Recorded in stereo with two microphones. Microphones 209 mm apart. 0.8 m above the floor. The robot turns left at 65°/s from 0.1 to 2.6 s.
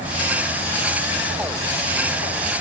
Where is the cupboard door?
No cupboard door in this recording.